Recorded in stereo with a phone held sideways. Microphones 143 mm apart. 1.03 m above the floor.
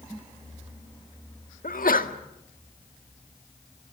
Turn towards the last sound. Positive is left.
turn(degrees=80)